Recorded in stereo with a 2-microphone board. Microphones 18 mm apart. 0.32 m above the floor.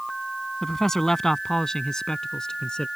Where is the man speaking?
20° left (ahead or behind); by 2.9 s 50° left (ahead or behind).